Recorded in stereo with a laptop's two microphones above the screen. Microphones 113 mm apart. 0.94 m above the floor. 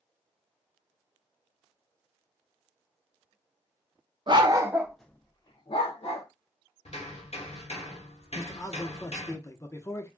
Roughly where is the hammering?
Left.